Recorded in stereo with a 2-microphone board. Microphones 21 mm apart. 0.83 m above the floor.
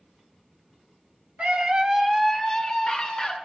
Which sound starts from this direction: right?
A scream, at 1.4 s.